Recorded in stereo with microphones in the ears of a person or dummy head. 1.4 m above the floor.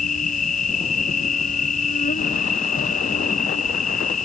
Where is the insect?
45° left (ahead or behind).